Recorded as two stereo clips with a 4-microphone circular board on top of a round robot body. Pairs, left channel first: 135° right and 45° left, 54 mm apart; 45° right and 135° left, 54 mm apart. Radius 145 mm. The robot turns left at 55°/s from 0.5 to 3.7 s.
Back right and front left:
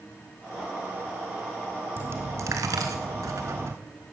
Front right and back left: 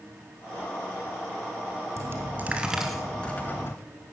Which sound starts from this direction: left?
A dropped coin, at 2.0 s.